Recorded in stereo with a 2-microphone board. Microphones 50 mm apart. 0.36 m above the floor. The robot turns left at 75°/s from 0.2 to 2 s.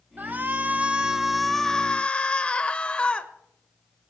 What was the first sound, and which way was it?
A shout, 90° right.